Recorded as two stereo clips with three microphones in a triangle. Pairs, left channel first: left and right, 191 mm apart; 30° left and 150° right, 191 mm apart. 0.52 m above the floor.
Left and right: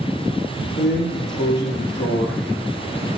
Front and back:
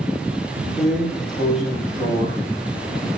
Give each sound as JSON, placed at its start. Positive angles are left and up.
{"t": 0.8, "sound": "a drawer", "azimuth_deg": 125, "distance_m": 4.5}